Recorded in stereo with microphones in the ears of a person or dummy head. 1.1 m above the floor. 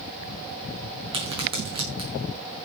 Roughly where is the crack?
Right.